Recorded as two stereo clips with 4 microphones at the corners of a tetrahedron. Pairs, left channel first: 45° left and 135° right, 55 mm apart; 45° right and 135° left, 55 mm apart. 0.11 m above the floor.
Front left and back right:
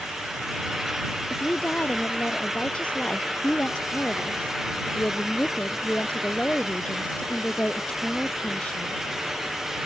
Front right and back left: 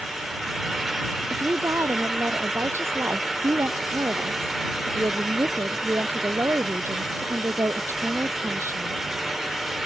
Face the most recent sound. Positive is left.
turn(degrees=110)